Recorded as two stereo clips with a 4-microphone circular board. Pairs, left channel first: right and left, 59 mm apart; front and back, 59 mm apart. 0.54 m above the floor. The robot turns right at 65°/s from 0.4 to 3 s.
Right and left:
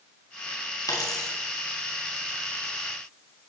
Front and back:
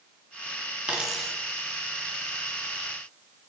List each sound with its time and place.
0.9 s a dropped coin: 110° right, 1.7 m; by 1.3 s 80° right, 1.7 m